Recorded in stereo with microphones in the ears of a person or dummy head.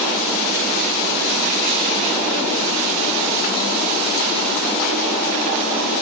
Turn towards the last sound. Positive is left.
No sound to turn to.